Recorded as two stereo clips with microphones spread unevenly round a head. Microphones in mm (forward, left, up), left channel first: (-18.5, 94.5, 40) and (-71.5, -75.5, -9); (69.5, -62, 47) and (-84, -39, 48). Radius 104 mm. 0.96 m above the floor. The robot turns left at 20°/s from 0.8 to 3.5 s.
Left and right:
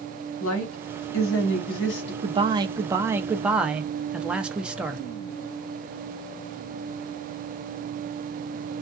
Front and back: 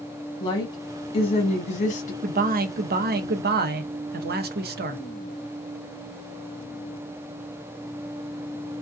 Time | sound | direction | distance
0.4 | a woman speaking | 55° left | 1.0 m
2.2 | a man speaking | 160° right | 0.6 m